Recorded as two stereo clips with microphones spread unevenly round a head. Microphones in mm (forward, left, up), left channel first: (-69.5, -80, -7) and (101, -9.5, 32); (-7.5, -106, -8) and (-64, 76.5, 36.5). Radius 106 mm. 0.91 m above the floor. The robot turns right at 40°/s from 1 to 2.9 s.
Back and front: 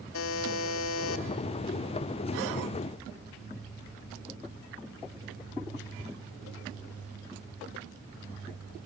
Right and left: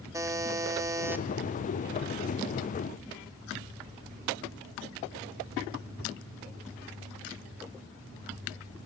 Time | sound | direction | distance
0.1 | a buzzer | straight behind | 0.9 m